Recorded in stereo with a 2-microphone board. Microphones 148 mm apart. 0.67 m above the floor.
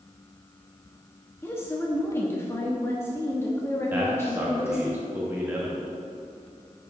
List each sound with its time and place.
1.4 s a woman speaking: 20° left (ahead or behind), 0.8 m
3.9 s a man speaking: 15° right (ahead or behind), 1.1 m